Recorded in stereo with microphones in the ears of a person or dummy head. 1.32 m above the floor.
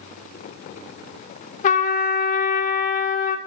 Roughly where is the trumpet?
Left.